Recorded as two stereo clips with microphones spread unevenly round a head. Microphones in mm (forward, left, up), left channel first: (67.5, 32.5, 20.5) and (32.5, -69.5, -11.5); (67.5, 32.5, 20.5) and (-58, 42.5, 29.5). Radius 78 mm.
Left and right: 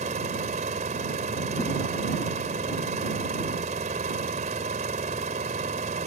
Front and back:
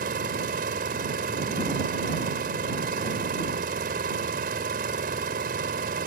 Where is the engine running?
155° right.